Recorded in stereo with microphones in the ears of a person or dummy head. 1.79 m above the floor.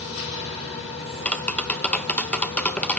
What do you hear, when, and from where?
0.0 s a machine running: 70° left (ahead or behind), 5 m
1.2 s tapping: 5° left (ahead or behind), 0.6 m